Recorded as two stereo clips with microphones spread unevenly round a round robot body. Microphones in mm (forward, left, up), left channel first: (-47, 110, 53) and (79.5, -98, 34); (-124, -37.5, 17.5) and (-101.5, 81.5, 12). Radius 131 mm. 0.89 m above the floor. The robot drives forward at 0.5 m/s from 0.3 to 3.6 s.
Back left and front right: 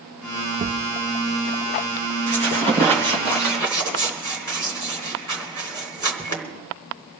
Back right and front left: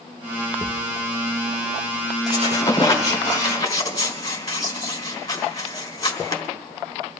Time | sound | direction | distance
0.6 | a thud | 5° left | 0.7 m
2.3 | a squeak | 155° right | 2.5 m